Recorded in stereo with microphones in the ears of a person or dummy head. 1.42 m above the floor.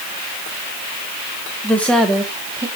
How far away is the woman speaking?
About 1.3 m.